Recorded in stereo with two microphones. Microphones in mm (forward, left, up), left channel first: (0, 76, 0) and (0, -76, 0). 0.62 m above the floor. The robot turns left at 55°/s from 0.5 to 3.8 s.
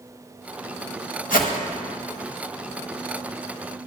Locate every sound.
1.3 s a whoosh: 75° left (ahead or behind), 1.1 m; by 1.5 s 65° left (ahead or behind), 1.1 m